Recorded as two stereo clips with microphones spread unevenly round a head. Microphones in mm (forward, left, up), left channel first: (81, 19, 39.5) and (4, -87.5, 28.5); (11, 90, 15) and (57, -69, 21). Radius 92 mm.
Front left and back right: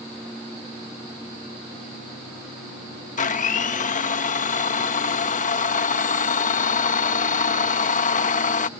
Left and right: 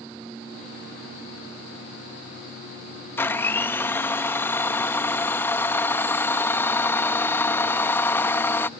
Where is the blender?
30° left.